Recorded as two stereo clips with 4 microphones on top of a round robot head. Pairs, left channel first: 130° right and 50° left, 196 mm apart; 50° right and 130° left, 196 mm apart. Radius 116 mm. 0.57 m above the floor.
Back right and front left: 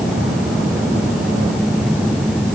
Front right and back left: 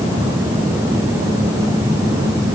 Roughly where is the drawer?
No drawer in this recording.